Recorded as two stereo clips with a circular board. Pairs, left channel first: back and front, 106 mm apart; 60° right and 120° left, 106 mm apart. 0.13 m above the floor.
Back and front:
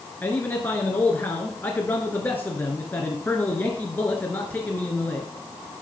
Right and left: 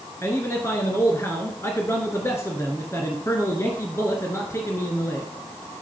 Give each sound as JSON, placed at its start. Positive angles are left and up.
{"t": 0.2, "sound": "a man speaking", "azimuth_deg": -115, "distance_m": 1.8}